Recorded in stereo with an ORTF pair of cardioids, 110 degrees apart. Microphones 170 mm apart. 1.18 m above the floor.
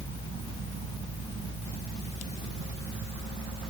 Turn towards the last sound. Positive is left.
turn(degrees=35)